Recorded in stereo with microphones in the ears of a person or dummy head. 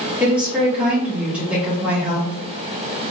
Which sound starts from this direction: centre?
A woman speaking, at 0.2 s.